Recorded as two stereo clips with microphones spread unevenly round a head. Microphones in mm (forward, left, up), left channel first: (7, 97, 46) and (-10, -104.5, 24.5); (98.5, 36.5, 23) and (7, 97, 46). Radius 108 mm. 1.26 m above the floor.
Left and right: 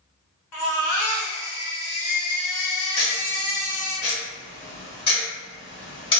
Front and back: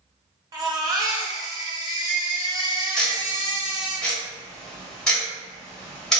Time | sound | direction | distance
0.5 | a baby crying | 90° left | 1.1 m
3.0 | ticking | 70° left | 1.1 m